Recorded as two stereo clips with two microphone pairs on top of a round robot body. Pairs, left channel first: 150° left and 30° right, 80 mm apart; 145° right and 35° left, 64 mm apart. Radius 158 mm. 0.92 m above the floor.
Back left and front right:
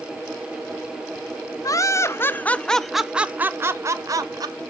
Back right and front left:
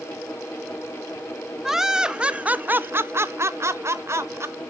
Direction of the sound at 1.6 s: 110° left.